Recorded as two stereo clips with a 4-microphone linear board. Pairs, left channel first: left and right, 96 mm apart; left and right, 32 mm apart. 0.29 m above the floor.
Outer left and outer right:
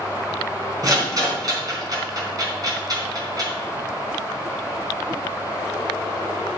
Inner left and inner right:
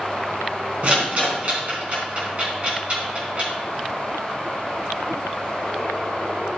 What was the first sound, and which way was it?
A rattle, 45° right (ahead or behind).